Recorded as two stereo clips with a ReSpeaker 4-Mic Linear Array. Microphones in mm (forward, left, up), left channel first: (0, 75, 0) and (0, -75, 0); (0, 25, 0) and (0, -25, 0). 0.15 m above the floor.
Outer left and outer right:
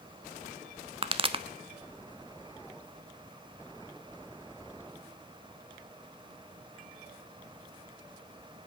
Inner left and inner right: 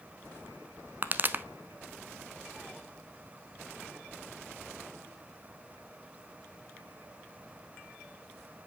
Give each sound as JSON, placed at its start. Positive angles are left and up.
{"t": 1.0, "sound": "a pop", "side_deg": -35, "distance_m": 0.6}